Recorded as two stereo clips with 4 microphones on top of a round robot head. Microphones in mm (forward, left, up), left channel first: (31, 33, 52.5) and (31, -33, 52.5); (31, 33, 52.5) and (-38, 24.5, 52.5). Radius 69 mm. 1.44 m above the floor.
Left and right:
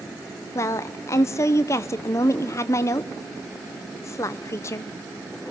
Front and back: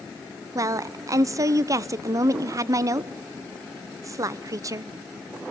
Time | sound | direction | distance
0.6 | a woman speaking | 140° left | 0.7 m